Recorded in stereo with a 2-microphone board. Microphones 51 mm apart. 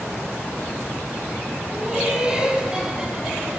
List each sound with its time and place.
1.7 s laughter: 30° right (ahead or behind), 5 m; by 3.6 s 20° right (ahead or behind), 5 m